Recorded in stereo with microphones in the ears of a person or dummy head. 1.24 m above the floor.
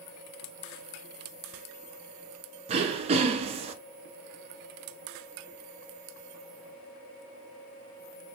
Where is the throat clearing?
35° right (ahead or behind), 0.5 m.